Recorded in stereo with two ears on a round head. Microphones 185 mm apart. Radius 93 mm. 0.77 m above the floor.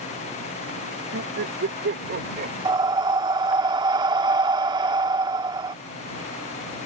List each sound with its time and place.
1.1 s laughter: 65° right (ahead or behind); by 2.5 s 40° right (ahead or behind)
2.6 s breathing: 20° right (ahead or behind)